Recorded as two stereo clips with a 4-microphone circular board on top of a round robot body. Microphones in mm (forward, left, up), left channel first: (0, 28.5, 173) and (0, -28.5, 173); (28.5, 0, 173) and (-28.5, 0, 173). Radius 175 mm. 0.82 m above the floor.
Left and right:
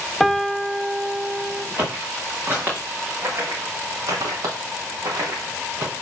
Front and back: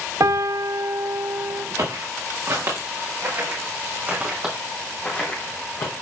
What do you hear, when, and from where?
0.2 s a piano: straight behind, 0.7 m
1.8 s footsteps: 155° right, 4.5 m; by 5.9 s 35° right, 2 m